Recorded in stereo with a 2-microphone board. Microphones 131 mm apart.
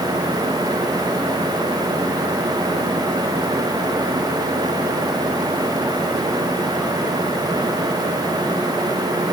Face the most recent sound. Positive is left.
No sound to turn to.